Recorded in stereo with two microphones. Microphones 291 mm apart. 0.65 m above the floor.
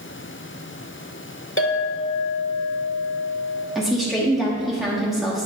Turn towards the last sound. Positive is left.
turn(degrees=0)  # may be behind; listen again after turning